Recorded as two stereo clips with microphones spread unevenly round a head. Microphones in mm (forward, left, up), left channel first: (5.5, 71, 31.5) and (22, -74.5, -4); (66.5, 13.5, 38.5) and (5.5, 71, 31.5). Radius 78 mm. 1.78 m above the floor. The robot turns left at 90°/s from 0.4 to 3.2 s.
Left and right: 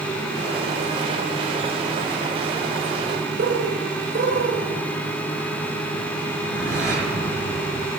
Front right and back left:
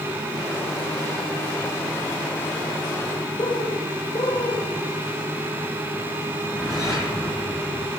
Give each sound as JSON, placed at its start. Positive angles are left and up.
{"t": 3.4, "sound": "a bird", "azimuth_deg": -70, "distance_m": 1.5}
{"t": 6.3, "sound": "a whoosh", "azimuth_deg": -120, "distance_m": 6.5}